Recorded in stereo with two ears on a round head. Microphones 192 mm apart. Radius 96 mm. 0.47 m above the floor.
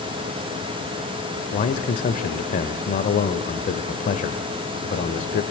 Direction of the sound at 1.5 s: 40° left (ahead or behind).